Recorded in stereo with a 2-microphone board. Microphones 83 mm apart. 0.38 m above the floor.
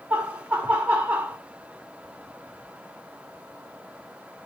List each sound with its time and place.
0.1 s laughter: 15° right (ahead or behind), 0.8 m